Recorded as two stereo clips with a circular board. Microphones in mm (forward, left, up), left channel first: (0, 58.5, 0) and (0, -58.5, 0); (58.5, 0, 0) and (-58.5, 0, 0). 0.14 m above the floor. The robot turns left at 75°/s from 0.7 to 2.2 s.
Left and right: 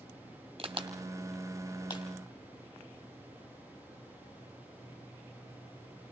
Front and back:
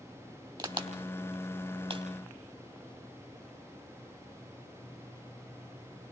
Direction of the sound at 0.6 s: 130° right.